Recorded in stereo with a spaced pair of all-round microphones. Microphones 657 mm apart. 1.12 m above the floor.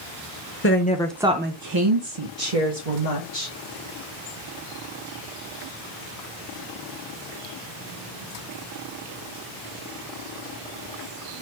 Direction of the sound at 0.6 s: 20° left (ahead or behind).